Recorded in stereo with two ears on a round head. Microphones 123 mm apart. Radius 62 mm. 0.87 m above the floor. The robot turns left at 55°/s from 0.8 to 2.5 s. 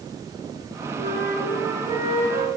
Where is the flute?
90° right, 2.5 m; by 2.5 s 175° right, 2.5 m.